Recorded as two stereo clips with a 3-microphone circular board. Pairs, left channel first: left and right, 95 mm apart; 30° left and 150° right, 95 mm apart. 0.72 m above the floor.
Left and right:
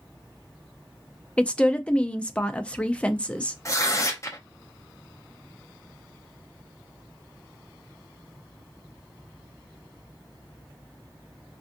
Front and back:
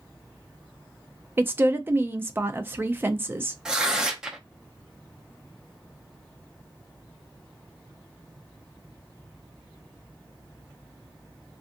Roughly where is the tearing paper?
Behind left.